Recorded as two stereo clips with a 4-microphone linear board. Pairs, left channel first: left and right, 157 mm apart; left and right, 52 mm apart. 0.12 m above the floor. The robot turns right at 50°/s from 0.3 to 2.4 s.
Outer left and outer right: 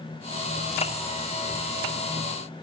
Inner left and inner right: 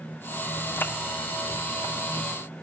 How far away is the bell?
I don't hear a bell.